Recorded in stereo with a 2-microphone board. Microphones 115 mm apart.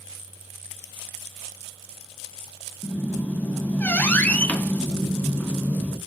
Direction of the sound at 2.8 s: 15° left (ahead or behind).